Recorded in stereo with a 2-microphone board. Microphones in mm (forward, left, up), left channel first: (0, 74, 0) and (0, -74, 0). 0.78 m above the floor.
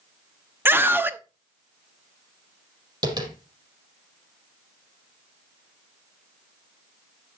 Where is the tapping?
30° right (ahead or behind), 4.5 m.